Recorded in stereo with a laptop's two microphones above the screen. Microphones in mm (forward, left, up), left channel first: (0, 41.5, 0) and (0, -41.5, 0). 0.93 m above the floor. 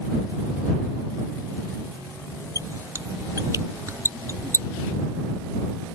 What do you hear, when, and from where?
2.5 s a squeak: 40° right (ahead or behind)